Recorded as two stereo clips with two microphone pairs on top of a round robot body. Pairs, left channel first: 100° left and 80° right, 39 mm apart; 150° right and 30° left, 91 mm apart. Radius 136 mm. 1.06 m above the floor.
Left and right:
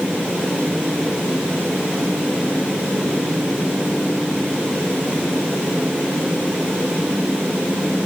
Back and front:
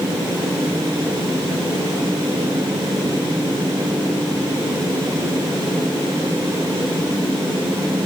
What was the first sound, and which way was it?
Only background noise.